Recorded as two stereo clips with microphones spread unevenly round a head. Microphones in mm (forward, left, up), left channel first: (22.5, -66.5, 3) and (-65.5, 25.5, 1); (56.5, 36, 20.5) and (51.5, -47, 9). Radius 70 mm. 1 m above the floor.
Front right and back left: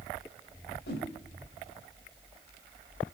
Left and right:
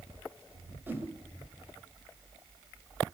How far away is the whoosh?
About 2 m.